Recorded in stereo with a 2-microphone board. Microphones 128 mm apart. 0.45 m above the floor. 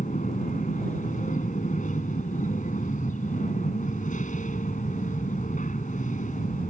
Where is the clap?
I don't hear a clap.